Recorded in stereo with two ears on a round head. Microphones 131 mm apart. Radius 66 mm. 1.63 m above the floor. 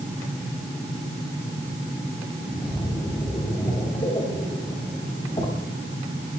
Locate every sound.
2.4 s a splash: 30° left (ahead or behind), 5 m